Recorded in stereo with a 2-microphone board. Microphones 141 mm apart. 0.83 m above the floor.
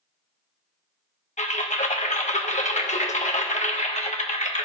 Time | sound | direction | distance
1.4 | typing on a keyboard | 55° left (ahead or behind) | 1.0 m